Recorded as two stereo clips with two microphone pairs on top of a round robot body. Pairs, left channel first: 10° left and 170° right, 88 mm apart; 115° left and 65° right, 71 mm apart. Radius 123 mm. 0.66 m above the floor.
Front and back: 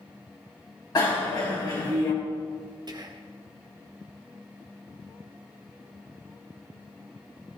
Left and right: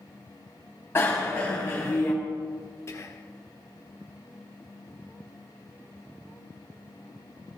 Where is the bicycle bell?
55° left, 3.5 m.